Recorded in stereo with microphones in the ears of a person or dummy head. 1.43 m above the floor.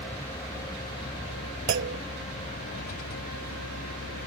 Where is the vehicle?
10° left (ahead or behind); by 4.3 s 60° left (ahead or behind).